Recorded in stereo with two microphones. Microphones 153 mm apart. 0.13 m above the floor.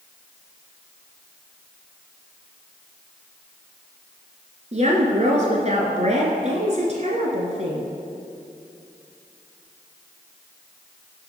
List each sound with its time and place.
4.7 s a woman speaking: 50° right (ahead or behind), 1.7 m